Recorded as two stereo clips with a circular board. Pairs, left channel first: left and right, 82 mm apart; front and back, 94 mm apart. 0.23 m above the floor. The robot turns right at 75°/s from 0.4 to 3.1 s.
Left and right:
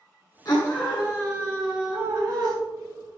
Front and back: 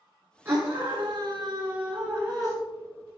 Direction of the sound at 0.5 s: 120° left.